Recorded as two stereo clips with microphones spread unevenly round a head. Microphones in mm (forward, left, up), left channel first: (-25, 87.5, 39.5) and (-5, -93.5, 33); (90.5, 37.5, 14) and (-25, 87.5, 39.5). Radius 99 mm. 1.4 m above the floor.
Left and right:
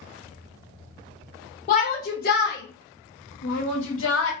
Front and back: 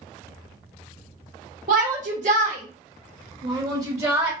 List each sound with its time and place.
1.7 s a shout: 150° left, 1.1 m; by 4.3 s 85° left, 1.4 m